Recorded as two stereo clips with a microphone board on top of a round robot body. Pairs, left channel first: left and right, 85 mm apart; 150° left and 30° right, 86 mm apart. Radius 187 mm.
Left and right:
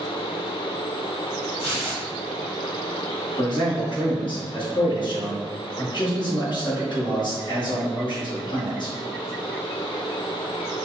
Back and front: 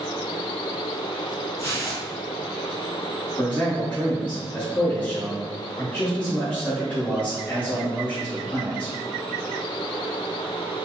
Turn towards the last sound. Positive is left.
turn(degrees=80)